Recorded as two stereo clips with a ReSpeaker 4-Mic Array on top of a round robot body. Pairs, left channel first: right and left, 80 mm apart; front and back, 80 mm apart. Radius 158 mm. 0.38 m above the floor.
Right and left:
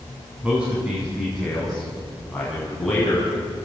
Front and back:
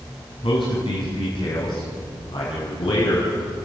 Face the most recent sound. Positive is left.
turn(degrees=-15)